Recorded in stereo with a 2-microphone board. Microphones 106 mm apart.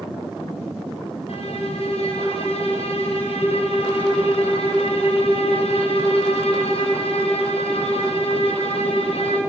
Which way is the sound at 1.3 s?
70° left (ahead or behind).